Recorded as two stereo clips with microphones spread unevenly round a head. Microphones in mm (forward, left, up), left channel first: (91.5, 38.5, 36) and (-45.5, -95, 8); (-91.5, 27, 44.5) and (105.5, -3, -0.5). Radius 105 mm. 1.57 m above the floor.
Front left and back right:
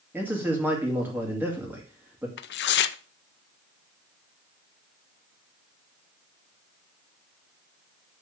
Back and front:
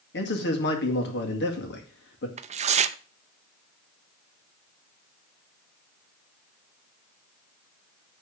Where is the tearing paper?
55° left, 0.5 m.